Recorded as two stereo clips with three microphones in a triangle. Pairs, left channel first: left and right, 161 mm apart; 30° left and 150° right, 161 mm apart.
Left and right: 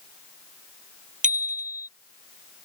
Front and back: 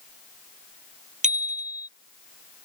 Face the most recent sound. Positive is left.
turn(degrees=-115)